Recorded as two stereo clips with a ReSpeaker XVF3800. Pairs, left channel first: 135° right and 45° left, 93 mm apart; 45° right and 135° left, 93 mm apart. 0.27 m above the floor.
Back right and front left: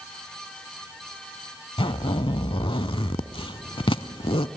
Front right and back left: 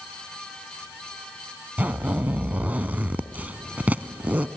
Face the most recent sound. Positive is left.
turn(degrees=-155)